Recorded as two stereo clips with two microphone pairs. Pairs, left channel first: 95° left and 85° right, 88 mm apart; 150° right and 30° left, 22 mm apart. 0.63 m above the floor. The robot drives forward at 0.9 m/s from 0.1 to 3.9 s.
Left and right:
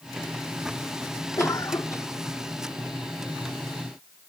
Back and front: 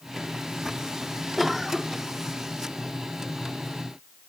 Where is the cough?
120° left; by 2.1 s 140° left.